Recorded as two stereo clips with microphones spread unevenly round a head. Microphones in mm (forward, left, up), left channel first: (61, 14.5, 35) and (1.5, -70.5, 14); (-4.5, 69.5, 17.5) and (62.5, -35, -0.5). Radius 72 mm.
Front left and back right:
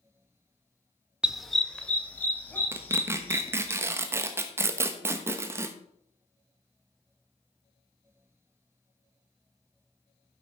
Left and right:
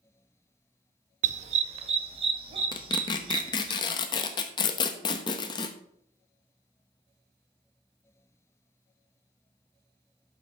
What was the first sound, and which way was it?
A dog barking, 40° right.